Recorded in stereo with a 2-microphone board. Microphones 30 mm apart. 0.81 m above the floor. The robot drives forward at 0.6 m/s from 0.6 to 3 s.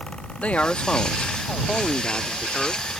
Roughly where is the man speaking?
Left.